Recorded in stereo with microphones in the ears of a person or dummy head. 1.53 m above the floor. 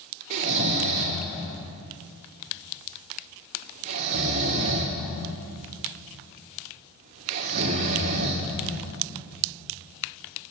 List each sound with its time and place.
0.3 s snoring: 40° right (ahead or behind), 2.5 m